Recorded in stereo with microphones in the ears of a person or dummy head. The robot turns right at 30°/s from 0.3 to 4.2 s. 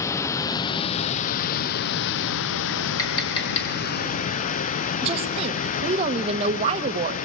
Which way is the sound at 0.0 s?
15° left.